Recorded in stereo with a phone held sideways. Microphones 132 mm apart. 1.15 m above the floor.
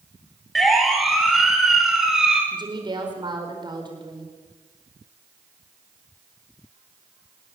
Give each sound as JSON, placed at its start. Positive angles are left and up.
{"t": 0.6, "sound": "a siren", "side_deg": 0, "distance_m": 5.0}
{"t": 2.5, "sound": "a woman speaking", "side_deg": -35, "distance_m": 4.5}